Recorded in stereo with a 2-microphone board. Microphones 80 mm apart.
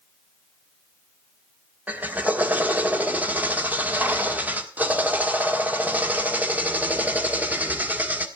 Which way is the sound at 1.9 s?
20° right (ahead or behind).